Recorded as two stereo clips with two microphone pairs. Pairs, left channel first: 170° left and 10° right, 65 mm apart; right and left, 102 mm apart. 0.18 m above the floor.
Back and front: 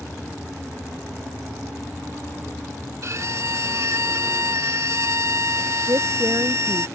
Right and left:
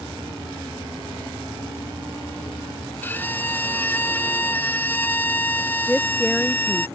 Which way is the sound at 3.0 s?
30° right.